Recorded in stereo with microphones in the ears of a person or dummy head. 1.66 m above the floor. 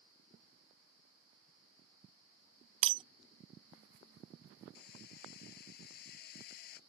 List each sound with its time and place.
2.8 s breaking glass: 35° right (ahead or behind)
4.8 s hammering: 55° left (ahead or behind)